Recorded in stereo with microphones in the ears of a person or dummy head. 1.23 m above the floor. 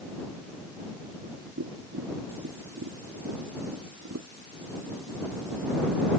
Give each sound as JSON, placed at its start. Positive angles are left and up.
{"t": 1.6, "sound": "tapping", "side_deg": -65}